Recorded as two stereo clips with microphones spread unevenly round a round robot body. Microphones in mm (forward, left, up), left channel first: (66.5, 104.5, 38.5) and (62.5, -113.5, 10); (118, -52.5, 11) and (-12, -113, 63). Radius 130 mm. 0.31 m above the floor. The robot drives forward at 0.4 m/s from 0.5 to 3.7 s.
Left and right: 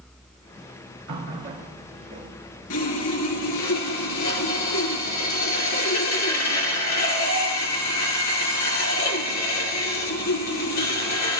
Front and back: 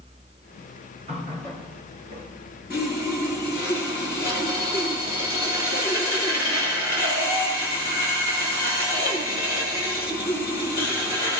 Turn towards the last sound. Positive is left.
turn(degrees=130)